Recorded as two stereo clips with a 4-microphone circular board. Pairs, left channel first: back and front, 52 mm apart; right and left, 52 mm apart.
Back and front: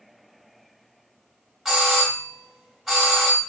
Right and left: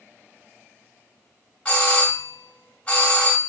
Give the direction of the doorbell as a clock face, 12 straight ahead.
3 o'clock.